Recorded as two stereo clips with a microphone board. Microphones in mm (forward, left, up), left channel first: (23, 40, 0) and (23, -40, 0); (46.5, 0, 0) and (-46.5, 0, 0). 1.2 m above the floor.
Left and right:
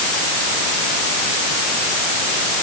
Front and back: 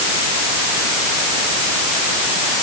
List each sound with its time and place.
Only background noise.